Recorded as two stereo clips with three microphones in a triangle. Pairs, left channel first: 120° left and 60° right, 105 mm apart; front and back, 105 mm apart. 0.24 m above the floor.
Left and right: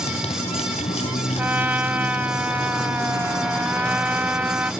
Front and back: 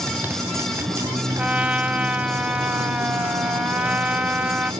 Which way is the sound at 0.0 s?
110° left.